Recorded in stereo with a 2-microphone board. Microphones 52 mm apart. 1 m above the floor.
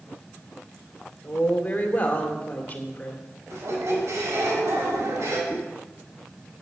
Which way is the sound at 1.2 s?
30° left (ahead or behind).